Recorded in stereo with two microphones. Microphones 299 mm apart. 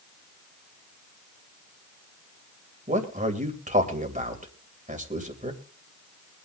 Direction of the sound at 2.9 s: 25° right (ahead or behind).